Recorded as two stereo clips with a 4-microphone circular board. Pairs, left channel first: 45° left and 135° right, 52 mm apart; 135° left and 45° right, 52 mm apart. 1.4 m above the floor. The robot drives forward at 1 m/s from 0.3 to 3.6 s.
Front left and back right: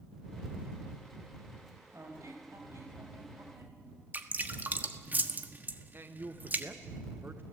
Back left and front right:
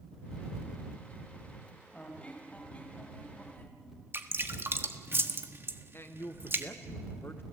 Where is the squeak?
155° right, 3.5 m; by 3.8 s 165° right, 5 m.